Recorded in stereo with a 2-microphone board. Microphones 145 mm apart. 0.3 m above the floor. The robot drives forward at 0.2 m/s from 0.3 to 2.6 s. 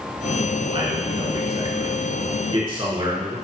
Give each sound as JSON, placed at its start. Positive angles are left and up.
{"t": 0.7, "sound": "a man speaking", "side_deg": -40, "distance_m": 3.0}